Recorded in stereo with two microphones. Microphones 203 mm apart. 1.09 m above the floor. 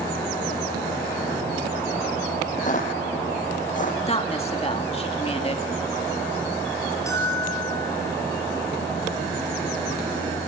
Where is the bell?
15° left (ahead or behind), 6 m.